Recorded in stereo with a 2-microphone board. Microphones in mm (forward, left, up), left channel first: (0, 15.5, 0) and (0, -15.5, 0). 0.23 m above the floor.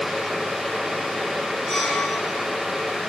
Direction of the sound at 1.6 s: Centre (ahead or behind).